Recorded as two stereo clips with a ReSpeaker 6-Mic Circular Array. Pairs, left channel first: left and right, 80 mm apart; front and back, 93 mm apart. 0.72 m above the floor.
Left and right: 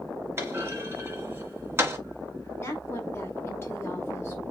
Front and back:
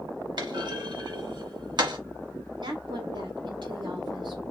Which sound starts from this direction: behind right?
A clunk, at 0.4 s.